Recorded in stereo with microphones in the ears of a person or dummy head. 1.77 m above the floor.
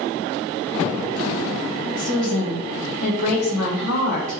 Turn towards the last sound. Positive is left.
turn(degrees=40)  # may be behind; listen again after turning